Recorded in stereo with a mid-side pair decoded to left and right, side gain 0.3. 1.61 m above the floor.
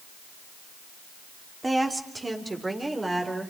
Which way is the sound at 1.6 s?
30° right.